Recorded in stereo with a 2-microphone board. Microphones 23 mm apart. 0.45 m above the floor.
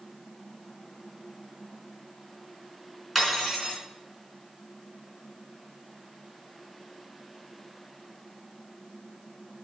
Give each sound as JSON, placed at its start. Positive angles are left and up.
{"t": 3.1, "sound": "cutlery clinking", "side_deg": -10, "distance_m": 3.0}